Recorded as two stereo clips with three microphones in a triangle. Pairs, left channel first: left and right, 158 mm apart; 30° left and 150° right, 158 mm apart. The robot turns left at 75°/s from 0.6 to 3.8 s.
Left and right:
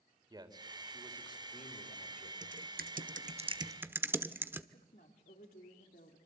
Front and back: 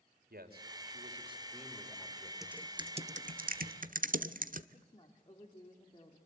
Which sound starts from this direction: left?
A woman speaking, at 4.7 s.